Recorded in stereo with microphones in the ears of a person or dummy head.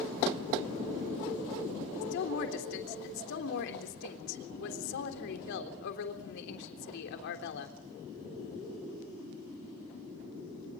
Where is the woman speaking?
70° left (ahead or behind), 3.5 m.